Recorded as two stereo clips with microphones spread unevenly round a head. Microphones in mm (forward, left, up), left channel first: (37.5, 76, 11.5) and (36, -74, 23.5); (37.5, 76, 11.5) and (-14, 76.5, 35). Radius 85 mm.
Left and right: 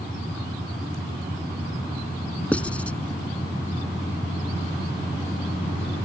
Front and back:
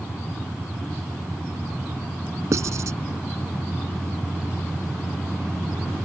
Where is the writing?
175° left.